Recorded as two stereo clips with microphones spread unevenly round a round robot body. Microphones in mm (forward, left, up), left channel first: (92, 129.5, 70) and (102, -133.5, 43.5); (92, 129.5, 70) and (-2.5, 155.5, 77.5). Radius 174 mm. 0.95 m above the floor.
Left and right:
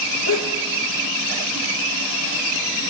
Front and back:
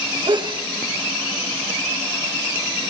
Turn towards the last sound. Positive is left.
turn(degrees=130)